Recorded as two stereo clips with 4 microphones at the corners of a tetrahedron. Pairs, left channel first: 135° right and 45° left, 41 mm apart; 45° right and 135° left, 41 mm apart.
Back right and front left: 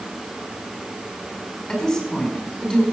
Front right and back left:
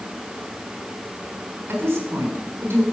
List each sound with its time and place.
1.7 s a woman speaking: 145° left, 5 m